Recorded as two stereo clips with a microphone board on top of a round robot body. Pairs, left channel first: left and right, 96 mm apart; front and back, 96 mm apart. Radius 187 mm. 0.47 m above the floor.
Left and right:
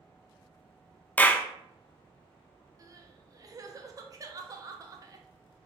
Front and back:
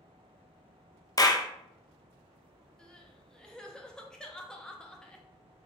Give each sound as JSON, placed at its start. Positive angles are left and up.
{"t": 1.2, "sound": "a clap", "azimuth_deg": 20, "distance_m": 0.5}
{"t": 2.8, "sound": "crying", "azimuth_deg": -80, "distance_m": 0.6}